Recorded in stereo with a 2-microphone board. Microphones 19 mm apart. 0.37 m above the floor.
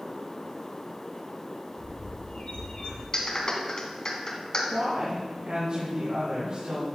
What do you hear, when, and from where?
1.8 s a bird: 70° left (ahead or behind), 3.5 m
3.1 s a clap: 40° left (ahead or behind), 2 m
4.7 s a woman speaking: 65° right (ahead or behind), 3.5 m